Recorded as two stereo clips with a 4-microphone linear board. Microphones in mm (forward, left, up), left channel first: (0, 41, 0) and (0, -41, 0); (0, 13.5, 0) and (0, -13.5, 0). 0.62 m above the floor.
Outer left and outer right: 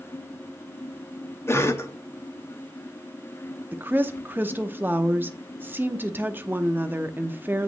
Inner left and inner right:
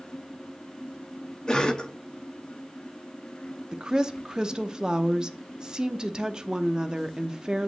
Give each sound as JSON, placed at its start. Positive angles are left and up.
{"t": 1.5, "sound": "a cough", "side_deg": 30, "distance_m": 0.9}
{"t": 3.7, "sound": "a woman speaking", "side_deg": -25, "distance_m": 0.6}